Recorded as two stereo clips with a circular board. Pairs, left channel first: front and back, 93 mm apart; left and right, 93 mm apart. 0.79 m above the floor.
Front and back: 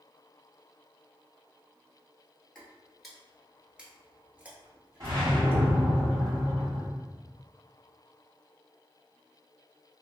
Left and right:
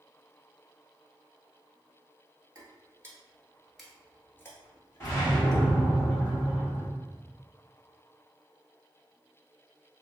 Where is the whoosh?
145° left, 1.7 m.